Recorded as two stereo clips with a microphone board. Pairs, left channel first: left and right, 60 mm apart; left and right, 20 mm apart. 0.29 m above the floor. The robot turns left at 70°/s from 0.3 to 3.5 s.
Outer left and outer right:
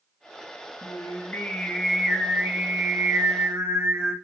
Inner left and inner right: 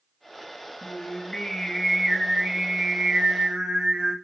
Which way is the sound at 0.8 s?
80° left.